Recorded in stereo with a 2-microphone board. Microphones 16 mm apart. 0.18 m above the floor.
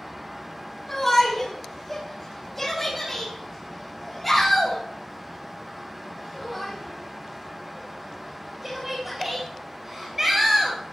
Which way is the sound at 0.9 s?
20° left (ahead or behind).